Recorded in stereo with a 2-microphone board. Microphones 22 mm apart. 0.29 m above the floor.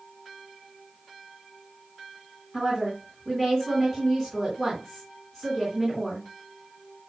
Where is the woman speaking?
10° left (ahead or behind), 3.5 m.